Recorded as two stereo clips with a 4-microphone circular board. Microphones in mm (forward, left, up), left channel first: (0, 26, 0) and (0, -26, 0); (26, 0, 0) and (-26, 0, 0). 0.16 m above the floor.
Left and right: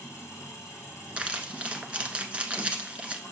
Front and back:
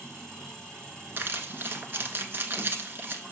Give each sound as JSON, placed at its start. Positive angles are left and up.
{"t": 0.0, "sound": "an engine running", "azimuth_deg": 80, "distance_m": 4.5}
{"t": 1.2, "sound": "crumpling", "azimuth_deg": -150, "distance_m": 1.1}